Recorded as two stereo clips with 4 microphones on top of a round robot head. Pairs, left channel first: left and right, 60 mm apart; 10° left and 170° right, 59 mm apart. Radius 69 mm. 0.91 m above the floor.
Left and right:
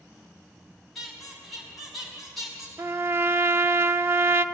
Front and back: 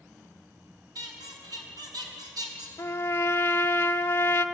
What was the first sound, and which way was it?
A squeak, straight behind.